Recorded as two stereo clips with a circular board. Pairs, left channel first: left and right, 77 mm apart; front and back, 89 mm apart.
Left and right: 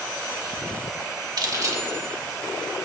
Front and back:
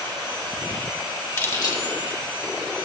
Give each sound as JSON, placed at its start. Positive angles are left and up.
{"t": 1.4, "sound": "keys jangling", "azimuth_deg": -60, "distance_m": 1.0}